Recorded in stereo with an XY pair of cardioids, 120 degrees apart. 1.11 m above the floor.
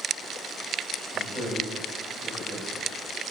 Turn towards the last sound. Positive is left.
turn(degrees=-40)